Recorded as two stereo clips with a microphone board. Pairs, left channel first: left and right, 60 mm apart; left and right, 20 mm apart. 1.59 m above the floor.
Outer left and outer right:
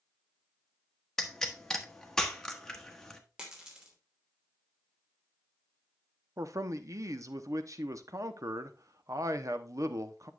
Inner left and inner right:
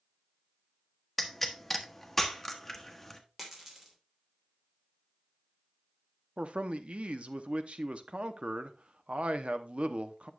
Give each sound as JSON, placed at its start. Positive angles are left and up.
{"t": 1.2, "sound": "a pop", "side_deg": 10, "distance_m": 1.0}
{"t": 3.4, "sound": "a dropped coin", "side_deg": -15, "distance_m": 2.5}
{"t": 6.4, "sound": "a man speaking", "side_deg": -60, "distance_m": 0.8}